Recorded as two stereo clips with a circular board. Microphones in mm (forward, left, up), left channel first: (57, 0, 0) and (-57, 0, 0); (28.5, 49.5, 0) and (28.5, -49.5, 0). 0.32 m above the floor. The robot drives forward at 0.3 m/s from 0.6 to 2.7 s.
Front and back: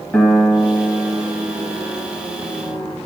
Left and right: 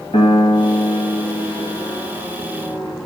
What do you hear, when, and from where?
0.1 s a piano: 85° left, 1.3 m; by 3.0 s 110° left, 1.4 m